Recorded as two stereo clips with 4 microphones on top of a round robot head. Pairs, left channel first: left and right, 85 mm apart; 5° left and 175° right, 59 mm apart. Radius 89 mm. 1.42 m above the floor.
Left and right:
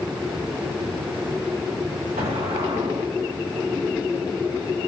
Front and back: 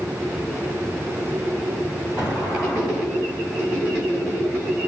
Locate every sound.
2.2 s an explosion: 100° right, 2.5 m